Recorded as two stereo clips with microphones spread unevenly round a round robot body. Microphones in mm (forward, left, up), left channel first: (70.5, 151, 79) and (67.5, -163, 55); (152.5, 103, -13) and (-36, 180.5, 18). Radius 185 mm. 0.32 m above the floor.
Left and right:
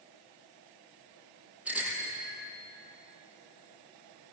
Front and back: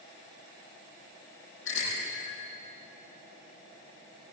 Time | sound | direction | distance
1.6 | a bicycle bell | 5° right | 8.5 m